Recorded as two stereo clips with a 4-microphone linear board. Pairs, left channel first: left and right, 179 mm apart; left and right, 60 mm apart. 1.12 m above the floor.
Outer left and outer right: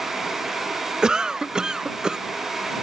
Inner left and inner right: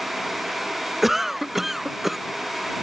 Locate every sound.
1.0 s a cough: 5° right (ahead or behind)